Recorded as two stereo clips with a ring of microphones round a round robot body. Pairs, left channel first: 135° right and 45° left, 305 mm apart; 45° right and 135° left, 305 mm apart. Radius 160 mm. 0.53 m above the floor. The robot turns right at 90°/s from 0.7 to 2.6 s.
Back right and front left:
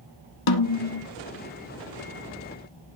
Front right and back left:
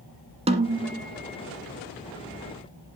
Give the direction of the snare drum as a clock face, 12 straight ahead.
5 o'clock.